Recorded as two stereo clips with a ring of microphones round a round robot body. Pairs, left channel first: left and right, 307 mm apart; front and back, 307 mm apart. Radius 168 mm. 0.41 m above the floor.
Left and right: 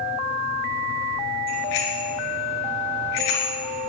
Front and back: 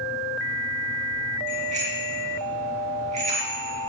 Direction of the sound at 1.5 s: 110° left.